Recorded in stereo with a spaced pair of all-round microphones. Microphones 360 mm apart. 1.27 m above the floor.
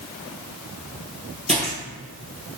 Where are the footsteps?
20° right (ahead or behind), 1.4 m.